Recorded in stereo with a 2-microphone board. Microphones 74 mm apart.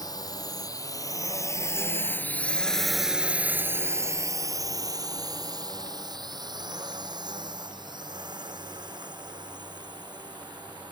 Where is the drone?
60° left (ahead or behind); by 10.9 s 80° right.